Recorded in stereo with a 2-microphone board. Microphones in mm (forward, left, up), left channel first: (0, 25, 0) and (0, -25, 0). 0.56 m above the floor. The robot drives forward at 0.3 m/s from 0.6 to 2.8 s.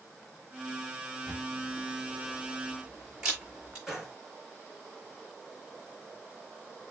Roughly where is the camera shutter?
Centre.